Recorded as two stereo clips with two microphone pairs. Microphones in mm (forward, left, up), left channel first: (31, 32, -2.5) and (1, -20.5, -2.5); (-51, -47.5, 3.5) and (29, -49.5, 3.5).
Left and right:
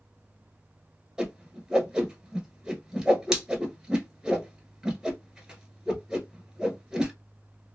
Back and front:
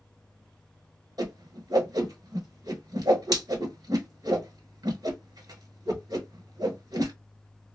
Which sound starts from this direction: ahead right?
A whoosh, at 1.2 s.